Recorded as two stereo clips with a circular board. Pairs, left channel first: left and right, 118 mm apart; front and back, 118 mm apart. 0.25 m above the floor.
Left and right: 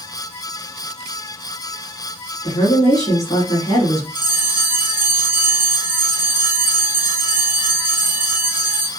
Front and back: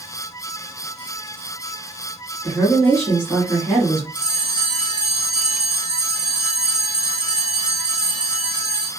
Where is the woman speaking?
75° left, 2 m.